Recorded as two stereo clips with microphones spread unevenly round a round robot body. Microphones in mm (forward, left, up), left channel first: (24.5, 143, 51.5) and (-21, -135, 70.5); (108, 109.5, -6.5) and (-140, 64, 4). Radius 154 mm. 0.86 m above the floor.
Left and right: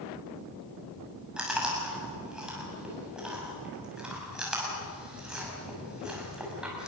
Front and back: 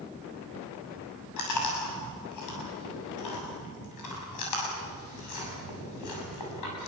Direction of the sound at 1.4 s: 10° right.